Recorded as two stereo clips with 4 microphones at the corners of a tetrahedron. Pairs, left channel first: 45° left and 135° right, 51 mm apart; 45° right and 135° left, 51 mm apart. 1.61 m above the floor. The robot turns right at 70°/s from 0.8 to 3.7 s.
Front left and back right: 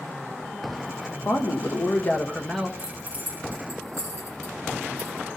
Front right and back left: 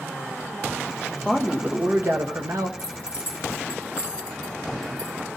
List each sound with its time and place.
1.2 s a man speaking: 45° left, 1.2 m; by 2.7 s 145° left, 1.2 m
2.8 s keys jangling: 140° left, 2 m; by 5.4 s 155° right, 2 m